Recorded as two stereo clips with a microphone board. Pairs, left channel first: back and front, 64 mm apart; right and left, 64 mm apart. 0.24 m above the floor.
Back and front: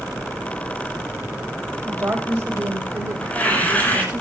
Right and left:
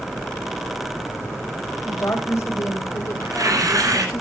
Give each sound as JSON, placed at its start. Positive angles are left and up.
{"t": 1.9, "sound": "a woman speaking", "azimuth_deg": -55, "distance_m": 8.5}
{"t": 3.2, "sound": "tearing paper", "azimuth_deg": 115, "distance_m": 8.0}